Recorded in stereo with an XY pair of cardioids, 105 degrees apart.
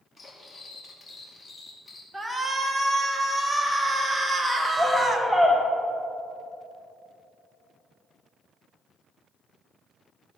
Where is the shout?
15° right, 1.6 m.